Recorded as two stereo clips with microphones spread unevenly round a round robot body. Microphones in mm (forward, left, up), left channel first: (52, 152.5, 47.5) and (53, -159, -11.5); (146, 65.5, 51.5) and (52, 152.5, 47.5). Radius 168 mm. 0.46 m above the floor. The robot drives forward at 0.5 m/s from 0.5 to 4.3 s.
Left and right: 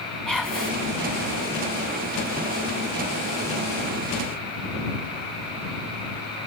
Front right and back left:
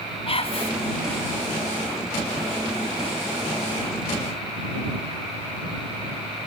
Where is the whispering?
Straight ahead, 3.5 m.